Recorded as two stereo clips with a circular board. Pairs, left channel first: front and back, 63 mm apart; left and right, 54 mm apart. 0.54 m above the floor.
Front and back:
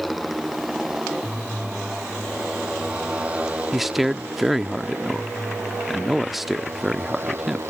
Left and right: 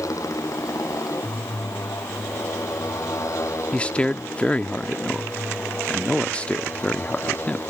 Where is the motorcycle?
90° left; by 7.7 s 130° left.